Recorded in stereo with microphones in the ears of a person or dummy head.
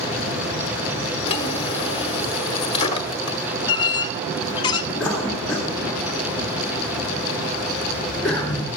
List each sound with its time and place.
1.3 s a drawer: 30° left (ahead or behind), 1.2 m
3.7 s a squeak: 25° left (ahead or behind), 0.6 m
5.0 s a cough: centre (ahead or behind), 2 m